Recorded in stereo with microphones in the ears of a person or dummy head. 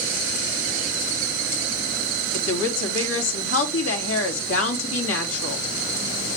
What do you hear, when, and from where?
2.3 s a woman speaking: 85° left, 3 m